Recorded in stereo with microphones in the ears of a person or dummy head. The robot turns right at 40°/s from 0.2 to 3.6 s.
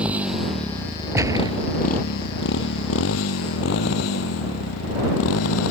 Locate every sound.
0.0 s a motorcycle: 5° right (ahead or behind); by 5.7 s 85° left
1.1 s a gunshot: 15° right (ahead or behind); by 1.6 s 30° right (ahead or behind)